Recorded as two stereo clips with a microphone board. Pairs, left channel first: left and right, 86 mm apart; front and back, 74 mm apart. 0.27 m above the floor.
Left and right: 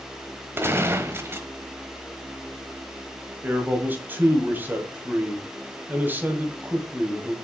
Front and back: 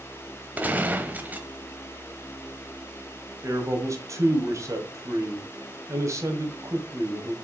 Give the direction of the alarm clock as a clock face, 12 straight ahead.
I don't hear an alarm clock.